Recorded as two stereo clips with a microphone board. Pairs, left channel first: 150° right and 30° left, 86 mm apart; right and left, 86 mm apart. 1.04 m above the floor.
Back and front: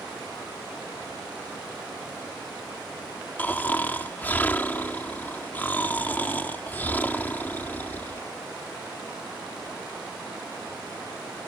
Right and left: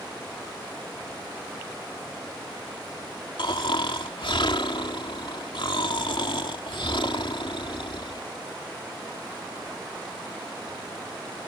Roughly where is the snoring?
Right.